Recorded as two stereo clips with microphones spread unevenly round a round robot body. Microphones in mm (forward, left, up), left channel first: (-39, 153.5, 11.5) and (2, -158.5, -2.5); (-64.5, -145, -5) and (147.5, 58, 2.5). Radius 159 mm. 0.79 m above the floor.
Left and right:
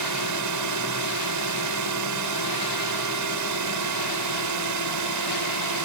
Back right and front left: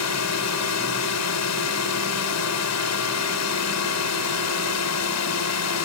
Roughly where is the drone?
Right.